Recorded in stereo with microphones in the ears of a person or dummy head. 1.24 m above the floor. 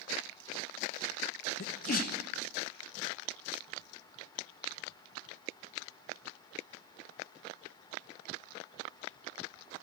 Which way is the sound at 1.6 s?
50° left (ahead or behind).